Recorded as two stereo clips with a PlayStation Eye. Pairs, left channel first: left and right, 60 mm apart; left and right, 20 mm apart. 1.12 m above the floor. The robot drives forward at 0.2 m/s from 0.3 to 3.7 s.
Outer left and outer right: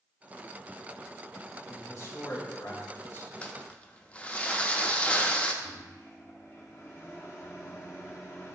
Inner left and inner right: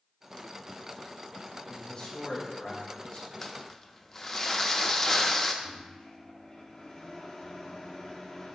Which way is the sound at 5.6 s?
45° left (ahead or behind).